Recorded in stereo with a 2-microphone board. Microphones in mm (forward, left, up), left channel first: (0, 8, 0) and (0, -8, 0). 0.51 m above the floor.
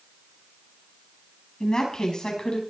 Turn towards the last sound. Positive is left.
turn(degrees=60)  # may be behind; listen again after turning